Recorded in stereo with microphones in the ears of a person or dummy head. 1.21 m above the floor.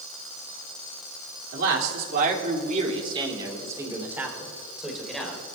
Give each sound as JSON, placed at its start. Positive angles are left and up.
{"t": 1.5, "sound": "a man speaking", "side_deg": -70, "distance_m": 3.0}